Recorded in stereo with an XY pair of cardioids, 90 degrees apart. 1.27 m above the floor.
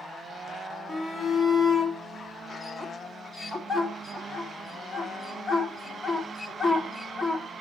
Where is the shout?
10° left, 3 m.